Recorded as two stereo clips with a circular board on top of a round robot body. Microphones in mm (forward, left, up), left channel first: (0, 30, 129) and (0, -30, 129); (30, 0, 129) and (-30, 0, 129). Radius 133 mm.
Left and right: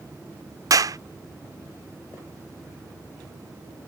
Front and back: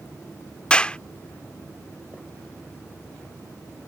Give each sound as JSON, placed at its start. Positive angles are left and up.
{"t": 0.7, "sound": "a clap", "azimuth_deg": -75}